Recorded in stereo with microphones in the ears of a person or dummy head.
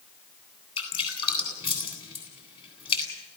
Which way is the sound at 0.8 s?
30° left (ahead or behind).